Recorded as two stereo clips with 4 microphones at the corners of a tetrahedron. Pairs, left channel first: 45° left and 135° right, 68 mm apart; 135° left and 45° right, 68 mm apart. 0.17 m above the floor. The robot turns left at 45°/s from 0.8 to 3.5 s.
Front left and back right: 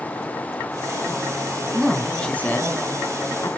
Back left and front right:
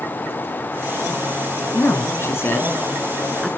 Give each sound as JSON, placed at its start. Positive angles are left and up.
{"t": 1.7, "sound": "a man speaking", "azimuth_deg": 135, "distance_m": 1.8}